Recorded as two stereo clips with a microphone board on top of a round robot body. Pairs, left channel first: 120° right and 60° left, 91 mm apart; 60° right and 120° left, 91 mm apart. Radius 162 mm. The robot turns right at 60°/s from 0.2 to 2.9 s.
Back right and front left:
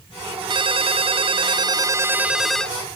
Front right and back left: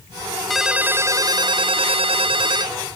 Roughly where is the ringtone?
Ahead left.